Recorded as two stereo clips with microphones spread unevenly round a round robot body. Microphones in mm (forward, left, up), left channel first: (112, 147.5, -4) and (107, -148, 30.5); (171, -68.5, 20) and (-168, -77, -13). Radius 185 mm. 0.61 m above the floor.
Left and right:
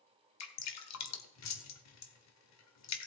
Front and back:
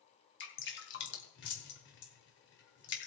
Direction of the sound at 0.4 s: 65° left.